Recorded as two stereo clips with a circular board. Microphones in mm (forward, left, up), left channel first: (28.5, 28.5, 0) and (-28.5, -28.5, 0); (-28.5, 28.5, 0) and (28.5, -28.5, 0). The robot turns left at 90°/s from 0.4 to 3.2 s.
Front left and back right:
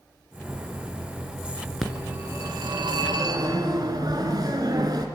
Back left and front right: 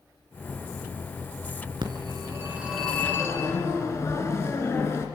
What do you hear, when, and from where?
1.8 s a phone ringing: 45° right, 3 m; by 5.1 s 170° right, 3 m